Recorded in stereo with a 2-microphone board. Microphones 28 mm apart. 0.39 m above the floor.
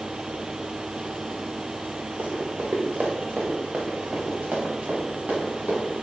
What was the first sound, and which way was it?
Running footsteps, 70° right (ahead or behind).